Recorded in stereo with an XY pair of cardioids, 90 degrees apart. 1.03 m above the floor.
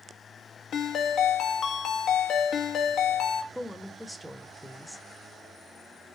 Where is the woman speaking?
Straight ahead, 0.9 m.